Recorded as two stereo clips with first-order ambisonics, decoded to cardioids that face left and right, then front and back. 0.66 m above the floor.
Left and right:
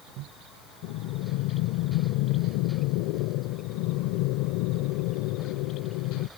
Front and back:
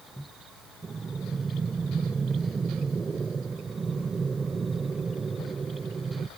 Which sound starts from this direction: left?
Breathing, at 0.8 s.